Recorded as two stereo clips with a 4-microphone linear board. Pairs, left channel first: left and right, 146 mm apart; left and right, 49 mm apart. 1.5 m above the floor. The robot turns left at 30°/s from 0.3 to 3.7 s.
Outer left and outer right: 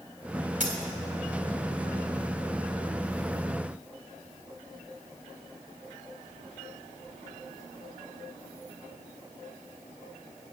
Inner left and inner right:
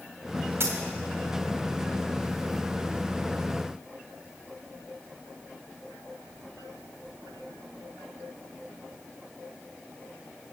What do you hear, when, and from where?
0.6 s a dropped coin: 60° right (ahead or behind), 2.0 m; by 0.8 s 55° right (ahead or behind), 2.0 m